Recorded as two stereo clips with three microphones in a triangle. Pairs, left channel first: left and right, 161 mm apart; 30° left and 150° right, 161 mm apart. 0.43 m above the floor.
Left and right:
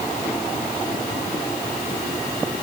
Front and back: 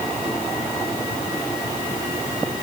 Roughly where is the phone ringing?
I don't hear a phone ringing.